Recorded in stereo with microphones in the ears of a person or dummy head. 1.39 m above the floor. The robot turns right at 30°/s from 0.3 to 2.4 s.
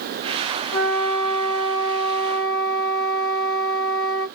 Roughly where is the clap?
No clap in this recording.